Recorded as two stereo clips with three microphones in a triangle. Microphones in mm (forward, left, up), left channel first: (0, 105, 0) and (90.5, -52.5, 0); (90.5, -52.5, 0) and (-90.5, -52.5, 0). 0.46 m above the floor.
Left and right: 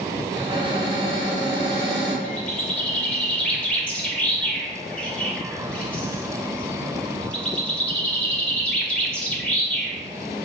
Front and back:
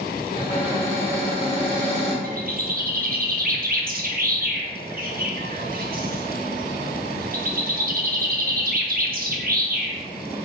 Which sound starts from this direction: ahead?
A cupboard door, at 0.3 s.